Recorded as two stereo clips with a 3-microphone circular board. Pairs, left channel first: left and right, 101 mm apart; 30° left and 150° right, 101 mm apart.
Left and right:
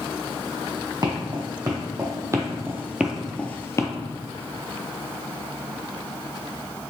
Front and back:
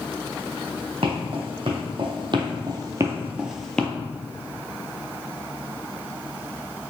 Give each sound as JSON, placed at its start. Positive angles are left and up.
{"t": 1.0, "sound": "footsteps", "azimuth_deg": -130, "distance_m": 1.6}